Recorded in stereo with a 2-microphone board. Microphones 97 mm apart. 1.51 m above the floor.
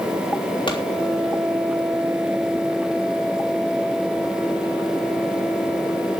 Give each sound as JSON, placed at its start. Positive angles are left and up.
{"t": 0.7, "sound": "a pop", "side_deg": 55, "distance_m": 3.5}